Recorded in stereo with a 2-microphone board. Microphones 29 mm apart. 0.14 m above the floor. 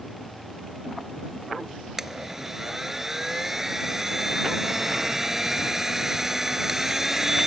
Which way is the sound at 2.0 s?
15° right (ahead or behind).